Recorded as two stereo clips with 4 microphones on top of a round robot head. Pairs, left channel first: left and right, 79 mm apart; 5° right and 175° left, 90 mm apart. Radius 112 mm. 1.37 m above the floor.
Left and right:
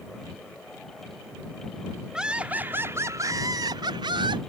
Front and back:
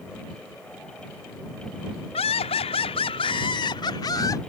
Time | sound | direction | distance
2.1 | laughter | 5° right | ?